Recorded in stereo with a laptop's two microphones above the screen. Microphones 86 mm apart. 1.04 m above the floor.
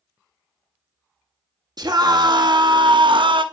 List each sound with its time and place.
1.8 s a scream: 55° right (ahead or behind), 1.5 m; by 3.5 s 75° right (ahead or behind), 0.9 m